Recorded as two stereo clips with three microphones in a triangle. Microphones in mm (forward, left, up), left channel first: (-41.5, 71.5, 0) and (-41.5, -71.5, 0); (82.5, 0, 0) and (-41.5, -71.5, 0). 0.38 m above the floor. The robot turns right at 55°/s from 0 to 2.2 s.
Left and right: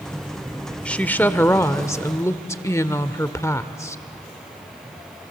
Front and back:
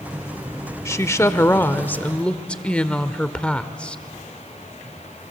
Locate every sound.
0.8 s a woman speaking: 25° left, 0.8 m; by 4.0 s 95° left, 0.8 m